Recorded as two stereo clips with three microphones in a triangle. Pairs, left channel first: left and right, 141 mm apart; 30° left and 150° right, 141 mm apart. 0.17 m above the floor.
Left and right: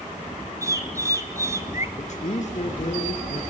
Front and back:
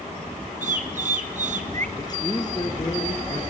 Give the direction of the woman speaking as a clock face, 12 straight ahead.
9 o'clock.